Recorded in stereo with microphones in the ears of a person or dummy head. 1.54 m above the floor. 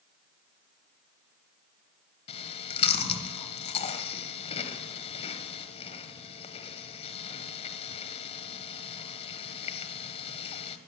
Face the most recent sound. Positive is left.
turn(degrees=30)  # may be behind; listen again after turning